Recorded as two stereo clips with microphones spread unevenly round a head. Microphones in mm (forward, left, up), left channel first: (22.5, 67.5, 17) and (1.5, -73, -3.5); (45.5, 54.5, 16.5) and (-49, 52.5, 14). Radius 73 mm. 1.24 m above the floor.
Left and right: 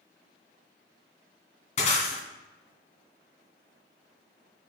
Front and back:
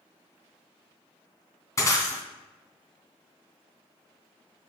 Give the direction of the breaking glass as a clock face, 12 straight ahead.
10 o'clock.